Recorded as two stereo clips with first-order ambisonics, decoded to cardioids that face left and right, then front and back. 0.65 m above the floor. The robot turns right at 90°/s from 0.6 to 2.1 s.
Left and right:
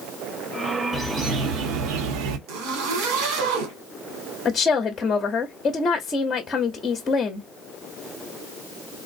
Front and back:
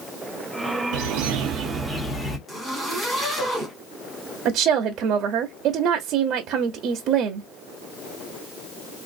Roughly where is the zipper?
Right.